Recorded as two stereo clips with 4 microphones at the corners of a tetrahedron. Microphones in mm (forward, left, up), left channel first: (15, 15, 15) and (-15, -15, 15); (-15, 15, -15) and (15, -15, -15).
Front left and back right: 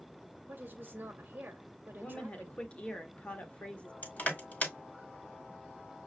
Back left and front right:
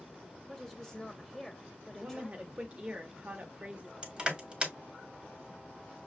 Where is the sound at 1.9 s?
Straight ahead, 1.1 m.